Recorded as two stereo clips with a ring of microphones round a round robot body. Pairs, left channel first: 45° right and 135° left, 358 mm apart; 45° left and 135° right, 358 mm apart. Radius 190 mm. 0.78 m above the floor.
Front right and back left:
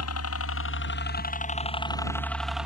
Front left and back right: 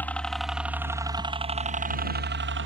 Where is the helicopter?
40° right; by 2.7 s 140° right.